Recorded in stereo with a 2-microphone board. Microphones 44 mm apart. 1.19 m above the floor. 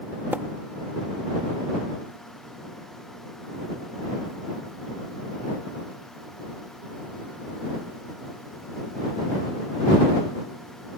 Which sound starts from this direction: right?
A splash, at 0.3 s.